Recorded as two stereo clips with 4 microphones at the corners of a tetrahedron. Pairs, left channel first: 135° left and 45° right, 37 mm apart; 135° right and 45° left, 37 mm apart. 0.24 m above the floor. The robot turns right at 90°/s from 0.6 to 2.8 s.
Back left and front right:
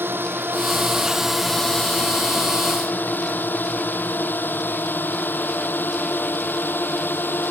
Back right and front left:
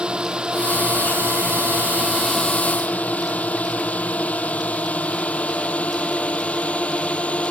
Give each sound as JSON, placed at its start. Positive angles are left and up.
{"t": 0.0, "sound": "a drone", "azimuth_deg": -20}